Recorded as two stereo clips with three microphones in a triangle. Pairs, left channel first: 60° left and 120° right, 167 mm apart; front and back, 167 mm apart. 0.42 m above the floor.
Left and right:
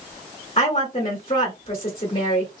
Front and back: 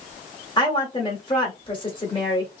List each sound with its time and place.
0.6 s a woman speaking: 40° left, 1.1 m